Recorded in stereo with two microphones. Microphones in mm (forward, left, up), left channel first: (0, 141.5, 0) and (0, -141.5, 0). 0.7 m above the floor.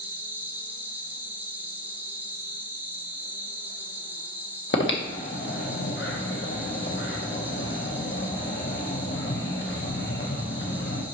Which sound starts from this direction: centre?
An insect, at 0.0 s.